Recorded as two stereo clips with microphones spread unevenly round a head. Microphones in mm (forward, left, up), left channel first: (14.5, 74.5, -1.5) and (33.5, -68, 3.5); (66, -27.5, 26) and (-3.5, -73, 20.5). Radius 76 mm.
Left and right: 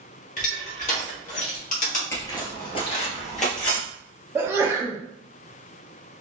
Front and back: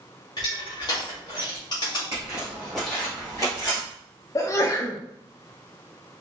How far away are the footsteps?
About 1.4 m.